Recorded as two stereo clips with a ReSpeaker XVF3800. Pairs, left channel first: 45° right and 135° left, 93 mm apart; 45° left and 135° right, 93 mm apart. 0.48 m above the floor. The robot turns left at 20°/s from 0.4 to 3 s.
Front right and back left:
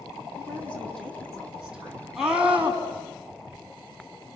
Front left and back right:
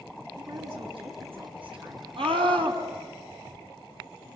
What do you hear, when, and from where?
0.4 s a woman speaking: 115° right, 5 m; by 2.1 s 150° right, 5 m
2.2 s a scream: 140° right, 4.5 m; by 2.8 s 155° right, 4.5 m